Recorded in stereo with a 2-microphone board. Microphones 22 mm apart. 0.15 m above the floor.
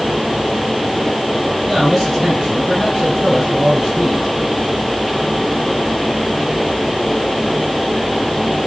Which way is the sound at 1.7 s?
20° right (ahead or behind).